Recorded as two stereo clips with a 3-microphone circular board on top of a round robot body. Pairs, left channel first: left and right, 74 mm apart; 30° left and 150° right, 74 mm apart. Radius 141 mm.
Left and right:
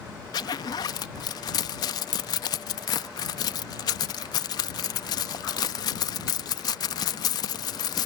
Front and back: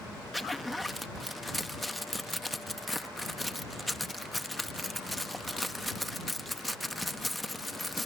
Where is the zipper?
120° left.